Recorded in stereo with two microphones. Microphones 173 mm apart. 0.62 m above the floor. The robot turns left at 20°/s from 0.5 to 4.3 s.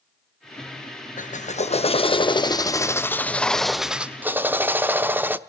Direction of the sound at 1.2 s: 50° left.